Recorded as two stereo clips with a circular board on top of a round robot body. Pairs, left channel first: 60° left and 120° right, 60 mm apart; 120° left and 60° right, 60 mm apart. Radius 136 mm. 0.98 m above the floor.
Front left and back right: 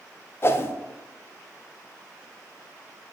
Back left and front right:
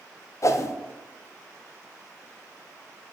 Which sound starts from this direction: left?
A whoosh, at 0.4 s.